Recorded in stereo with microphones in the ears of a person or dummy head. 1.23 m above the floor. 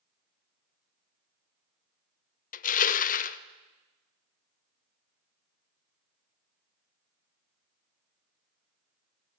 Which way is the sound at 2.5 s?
35° left (ahead or behind).